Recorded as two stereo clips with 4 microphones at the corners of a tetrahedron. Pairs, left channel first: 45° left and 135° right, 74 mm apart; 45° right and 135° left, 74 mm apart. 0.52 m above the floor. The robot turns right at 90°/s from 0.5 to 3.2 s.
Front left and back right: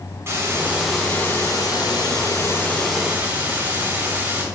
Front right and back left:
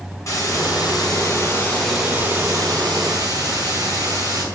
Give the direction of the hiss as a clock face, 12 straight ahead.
3 o'clock.